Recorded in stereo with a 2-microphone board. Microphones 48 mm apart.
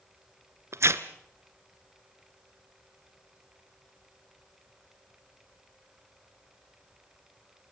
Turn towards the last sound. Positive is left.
turn(degrees=-70)  # may be behind; listen again after turning